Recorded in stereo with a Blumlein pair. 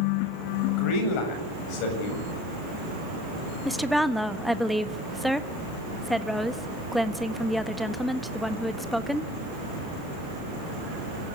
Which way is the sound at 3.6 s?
5° left.